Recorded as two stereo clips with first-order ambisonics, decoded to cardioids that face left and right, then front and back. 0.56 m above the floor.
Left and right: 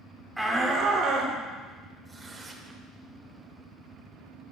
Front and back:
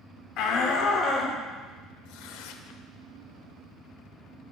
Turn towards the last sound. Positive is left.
turn(degrees=-15)